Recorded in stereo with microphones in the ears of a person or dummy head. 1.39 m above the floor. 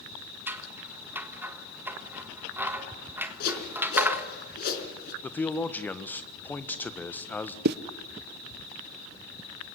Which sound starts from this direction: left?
A whoosh, at 3.4 s.